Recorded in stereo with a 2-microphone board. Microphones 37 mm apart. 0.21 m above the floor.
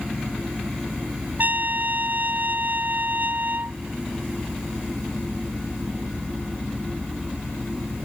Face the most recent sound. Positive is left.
turn(degrees=-55)  # may be behind; listen again after turning